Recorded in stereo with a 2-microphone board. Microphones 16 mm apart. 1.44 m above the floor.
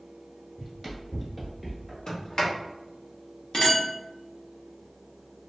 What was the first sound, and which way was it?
Running footsteps, 5° right (ahead or behind).